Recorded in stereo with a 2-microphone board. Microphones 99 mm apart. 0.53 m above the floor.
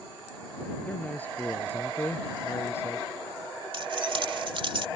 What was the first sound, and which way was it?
A man speaking, 15° left (ahead or behind).